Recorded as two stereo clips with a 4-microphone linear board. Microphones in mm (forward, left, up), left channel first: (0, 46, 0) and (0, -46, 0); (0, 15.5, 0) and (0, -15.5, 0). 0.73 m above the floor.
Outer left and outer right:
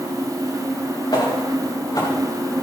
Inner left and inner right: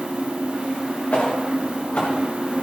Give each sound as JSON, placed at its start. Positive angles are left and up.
{"t": 1.1, "sound": "footsteps", "side_deg": 55, "distance_m": 4.5}